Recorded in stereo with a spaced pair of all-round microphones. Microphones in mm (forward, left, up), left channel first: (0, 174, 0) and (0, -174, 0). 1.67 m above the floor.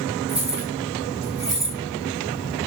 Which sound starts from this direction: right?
Keys jangling, at 0.3 s.